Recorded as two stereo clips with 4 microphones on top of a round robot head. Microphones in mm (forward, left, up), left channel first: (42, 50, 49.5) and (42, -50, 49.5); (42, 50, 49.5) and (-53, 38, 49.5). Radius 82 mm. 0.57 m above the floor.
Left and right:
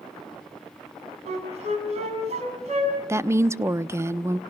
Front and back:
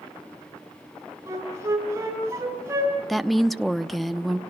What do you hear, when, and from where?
1.3 s a flute: 105° right, 6 m
3.1 s a woman speaking: 85° right, 0.8 m